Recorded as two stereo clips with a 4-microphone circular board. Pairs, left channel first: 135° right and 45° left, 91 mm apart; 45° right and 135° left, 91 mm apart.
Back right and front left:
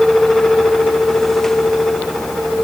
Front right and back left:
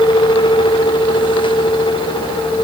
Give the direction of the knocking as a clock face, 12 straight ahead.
I don't hear knocking.